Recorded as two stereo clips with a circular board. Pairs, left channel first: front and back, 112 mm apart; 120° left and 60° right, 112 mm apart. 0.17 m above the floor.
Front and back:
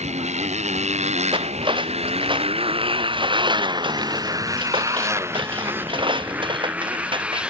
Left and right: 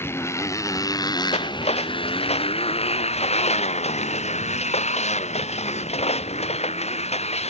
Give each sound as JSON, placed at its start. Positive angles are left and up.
{"t": 0.0, "sound": "a motorcycle", "azimuth_deg": -175}
{"t": 1.3, "sound": "cutlery clinking", "azimuth_deg": 140}